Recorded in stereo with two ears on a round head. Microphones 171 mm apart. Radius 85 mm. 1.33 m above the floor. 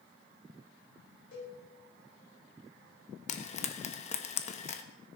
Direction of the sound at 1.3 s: 65° left (ahead or behind).